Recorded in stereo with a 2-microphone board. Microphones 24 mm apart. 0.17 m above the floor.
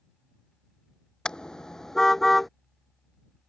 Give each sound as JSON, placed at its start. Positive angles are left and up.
{"t": 1.2, "sound": "a car horn", "side_deg": 40}